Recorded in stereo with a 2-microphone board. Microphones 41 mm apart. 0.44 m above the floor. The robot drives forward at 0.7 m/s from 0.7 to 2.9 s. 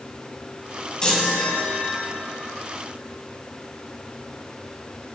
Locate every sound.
1.0 s a chime: 20° left (ahead or behind), 2 m; by 2.1 s 35° left (ahead or behind), 1.4 m